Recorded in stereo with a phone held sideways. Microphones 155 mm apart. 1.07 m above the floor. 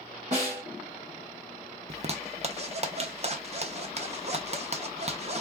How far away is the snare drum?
About 1.6 m.